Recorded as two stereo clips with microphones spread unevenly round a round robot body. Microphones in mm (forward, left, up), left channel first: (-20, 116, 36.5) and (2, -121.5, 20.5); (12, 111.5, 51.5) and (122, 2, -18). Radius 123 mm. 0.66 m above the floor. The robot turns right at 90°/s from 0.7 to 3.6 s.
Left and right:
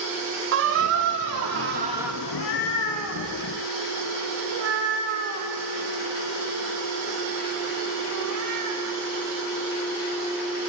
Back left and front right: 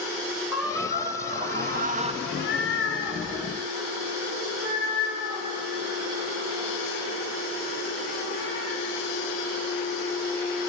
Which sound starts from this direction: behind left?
A cat meowing, at 2.2 s.